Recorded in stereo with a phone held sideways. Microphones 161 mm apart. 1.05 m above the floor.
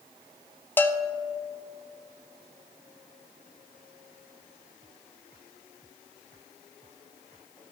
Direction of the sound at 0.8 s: 15° left (ahead or behind).